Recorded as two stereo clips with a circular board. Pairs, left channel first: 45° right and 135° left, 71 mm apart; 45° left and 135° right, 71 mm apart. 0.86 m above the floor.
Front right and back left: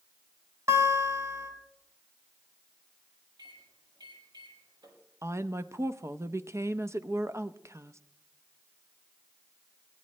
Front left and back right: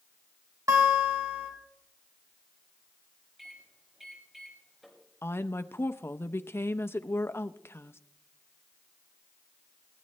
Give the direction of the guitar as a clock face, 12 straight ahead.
6 o'clock.